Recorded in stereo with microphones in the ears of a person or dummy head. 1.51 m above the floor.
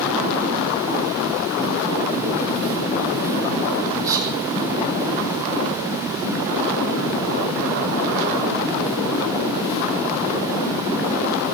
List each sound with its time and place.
4.0 s whispering: 20° right (ahead or behind), 10 m